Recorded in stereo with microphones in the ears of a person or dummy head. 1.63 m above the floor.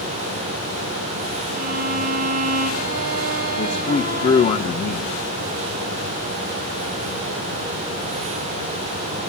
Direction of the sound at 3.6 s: 35° left (ahead or behind).